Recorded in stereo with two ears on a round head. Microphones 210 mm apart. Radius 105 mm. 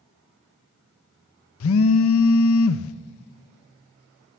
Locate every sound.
1.6 s a phone buzzing: 65° left (ahead or behind), 0.6 m